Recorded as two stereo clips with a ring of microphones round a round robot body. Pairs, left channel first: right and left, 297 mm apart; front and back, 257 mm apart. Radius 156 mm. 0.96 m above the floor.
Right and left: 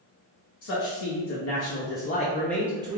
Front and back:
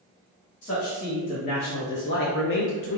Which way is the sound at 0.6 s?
65° right.